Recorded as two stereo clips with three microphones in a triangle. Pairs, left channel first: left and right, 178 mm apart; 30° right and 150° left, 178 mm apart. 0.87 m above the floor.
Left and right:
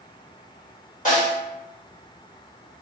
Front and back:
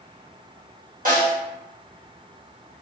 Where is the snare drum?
125° left, 1.1 m.